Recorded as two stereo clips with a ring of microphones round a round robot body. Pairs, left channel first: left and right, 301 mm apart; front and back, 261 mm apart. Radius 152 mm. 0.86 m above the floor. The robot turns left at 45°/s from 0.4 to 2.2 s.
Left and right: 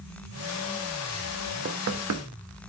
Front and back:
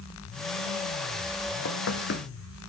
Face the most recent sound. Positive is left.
turn(degrees=-55)